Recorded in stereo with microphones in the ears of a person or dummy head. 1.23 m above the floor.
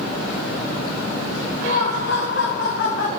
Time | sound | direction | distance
1.6 | laughter | 35° left (ahead or behind) | 0.5 m